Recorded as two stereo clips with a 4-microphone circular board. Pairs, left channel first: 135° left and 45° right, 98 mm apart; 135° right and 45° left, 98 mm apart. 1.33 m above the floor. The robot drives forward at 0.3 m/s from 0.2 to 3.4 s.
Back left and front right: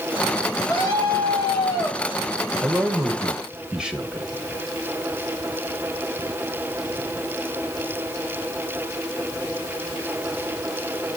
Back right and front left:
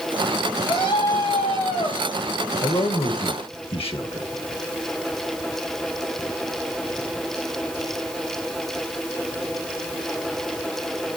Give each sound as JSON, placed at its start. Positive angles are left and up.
{"t": 0.7, "sound": "a scream", "azimuth_deg": -165, "distance_m": 8.5}
{"t": 2.6, "sound": "a man speaking", "azimuth_deg": -120, "distance_m": 1.5}